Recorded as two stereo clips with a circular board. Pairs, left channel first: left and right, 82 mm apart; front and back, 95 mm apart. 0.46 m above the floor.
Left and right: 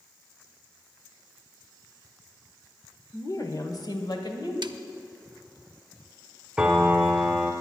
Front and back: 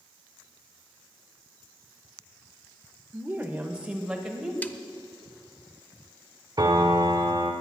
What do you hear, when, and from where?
3.1 s a woman speaking: 120° left, 1.3 m; by 4.5 s 95° left, 2.5 m
4.6 s a snare drum: 70° right, 0.6 m
6.6 s a piano: 170° right, 1.3 m